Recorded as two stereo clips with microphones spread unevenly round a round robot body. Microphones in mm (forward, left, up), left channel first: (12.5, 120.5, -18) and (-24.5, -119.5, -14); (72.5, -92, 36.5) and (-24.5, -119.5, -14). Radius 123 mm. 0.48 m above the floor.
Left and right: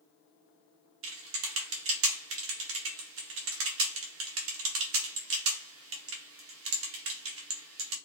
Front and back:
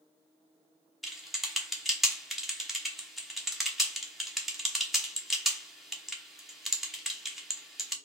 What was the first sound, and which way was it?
Typing on a keyboard, 105° right.